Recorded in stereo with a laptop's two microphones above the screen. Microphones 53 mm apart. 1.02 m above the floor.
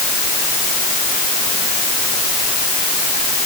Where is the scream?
No scream in this recording.